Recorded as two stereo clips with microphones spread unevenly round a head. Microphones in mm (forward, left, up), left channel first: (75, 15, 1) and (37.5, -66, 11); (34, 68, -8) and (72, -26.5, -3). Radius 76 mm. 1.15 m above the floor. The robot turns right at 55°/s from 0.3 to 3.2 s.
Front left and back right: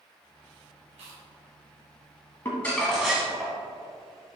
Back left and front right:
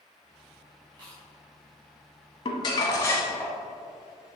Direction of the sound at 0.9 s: 140° right.